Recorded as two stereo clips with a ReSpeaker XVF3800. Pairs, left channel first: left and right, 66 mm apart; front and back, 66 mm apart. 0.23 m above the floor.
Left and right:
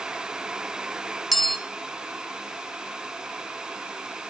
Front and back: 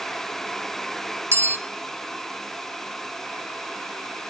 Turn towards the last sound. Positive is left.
turn(degrees=180)